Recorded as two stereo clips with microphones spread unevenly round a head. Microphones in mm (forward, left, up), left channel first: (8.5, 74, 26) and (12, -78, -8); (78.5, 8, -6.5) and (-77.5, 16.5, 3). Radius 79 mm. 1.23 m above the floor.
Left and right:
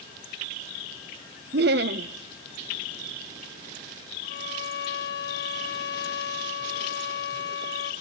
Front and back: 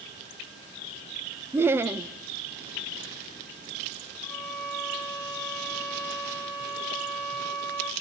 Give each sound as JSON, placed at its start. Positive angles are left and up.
{"t": 1.5, "sound": "laughter", "azimuth_deg": -105, "distance_m": 0.7}
{"t": 4.2, "sound": "a violin", "azimuth_deg": 75, "distance_m": 2.0}